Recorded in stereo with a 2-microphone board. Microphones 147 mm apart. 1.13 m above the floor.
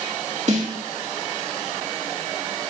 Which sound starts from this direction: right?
A snare drum, at 0.5 s.